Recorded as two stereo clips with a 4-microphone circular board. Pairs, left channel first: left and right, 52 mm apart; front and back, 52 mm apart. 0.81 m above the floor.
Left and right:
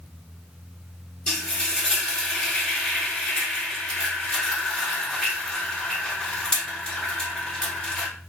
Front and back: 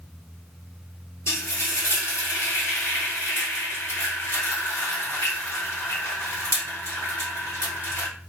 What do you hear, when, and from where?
1.3 s frying: 15° left, 2 m